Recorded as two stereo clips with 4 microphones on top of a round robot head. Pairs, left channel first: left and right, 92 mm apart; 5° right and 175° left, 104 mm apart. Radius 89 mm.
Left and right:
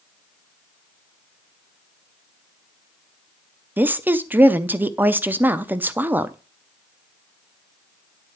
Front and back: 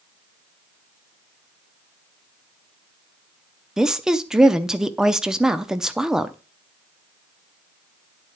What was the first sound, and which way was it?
A woman speaking, 115° right.